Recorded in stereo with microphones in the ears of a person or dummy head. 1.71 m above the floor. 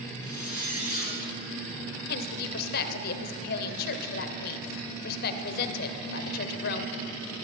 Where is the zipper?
10° right (ahead or behind), 5 m.